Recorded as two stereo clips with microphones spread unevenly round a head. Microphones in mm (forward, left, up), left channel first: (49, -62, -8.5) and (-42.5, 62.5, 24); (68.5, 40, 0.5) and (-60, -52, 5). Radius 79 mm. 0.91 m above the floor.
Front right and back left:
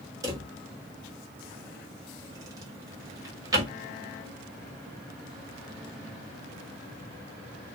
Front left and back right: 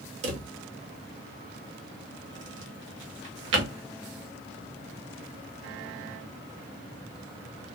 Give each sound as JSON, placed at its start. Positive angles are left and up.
{"t": 0.2, "sound": "a drawer", "azimuth_deg": -165, "distance_m": 0.8}